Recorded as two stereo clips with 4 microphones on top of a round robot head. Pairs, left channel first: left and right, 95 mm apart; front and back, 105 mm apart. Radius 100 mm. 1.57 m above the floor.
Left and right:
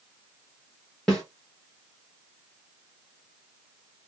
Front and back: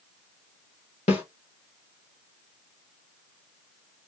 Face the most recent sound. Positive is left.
turn(degrees=5)